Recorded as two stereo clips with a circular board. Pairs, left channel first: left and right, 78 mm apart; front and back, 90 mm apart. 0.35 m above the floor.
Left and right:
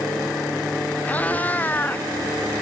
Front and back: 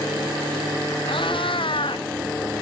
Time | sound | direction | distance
1.1 | a cat meowing | 20° left | ?